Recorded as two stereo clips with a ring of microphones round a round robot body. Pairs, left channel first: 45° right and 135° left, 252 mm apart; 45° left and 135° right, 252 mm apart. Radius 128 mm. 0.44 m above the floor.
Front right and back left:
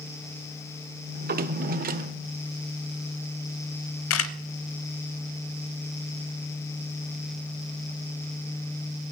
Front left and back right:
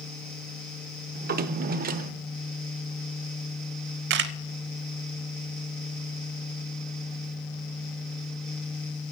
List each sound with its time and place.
1.1 s a drawer: straight behind, 0.8 m
4.1 s a camera shutter: 85° right, 0.7 m